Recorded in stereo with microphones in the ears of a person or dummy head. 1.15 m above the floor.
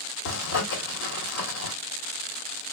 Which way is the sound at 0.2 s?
70° left (ahead or behind).